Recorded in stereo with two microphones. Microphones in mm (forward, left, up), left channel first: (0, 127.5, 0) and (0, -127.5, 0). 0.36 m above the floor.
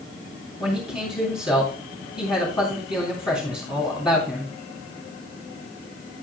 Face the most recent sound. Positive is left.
turn(degrees=20)  # may be behind; listen again after turning